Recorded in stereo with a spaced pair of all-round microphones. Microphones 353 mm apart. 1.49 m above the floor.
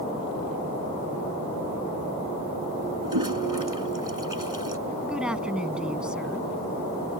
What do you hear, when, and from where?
3.0 s a toilet flushing: 70° right (ahead or behind)
5.0 s a woman speaking: centre (ahead or behind)